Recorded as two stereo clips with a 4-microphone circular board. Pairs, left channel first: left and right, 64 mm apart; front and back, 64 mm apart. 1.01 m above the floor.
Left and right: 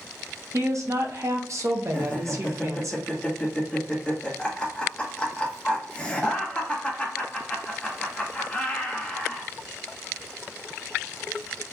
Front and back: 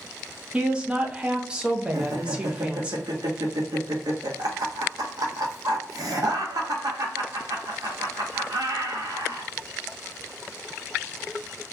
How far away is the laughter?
About 1.1 m.